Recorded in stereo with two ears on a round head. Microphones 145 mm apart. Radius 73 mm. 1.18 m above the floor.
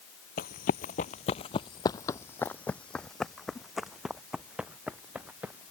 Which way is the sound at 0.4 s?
60° left (ahead or behind).